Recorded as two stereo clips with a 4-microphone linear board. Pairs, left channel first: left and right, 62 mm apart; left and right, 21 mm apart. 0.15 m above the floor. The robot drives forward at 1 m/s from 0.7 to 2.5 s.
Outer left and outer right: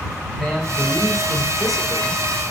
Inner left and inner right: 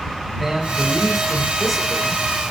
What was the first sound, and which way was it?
A man speaking, centre (ahead or behind).